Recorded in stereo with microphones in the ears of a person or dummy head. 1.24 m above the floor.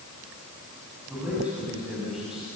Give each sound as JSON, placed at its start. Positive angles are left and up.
{"t": 1.1, "sound": "a man speaking", "side_deg": -5, "distance_m": 7.5}